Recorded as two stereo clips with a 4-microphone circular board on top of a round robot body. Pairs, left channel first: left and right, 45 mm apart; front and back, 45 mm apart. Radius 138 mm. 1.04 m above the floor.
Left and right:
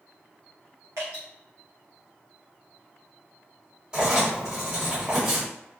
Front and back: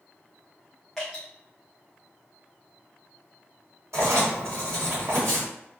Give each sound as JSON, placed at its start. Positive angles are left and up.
{"t": 1.0, "sound": "dripping", "azimuth_deg": -85, "distance_m": 0.6}
{"t": 3.9, "sound": "writing", "azimuth_deg": -160, "distance_m": 1.7}